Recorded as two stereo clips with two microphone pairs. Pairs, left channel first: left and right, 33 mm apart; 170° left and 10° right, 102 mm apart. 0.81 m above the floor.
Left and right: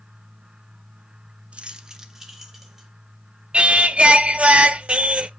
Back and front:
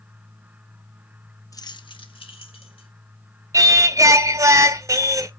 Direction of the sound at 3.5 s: 50° right.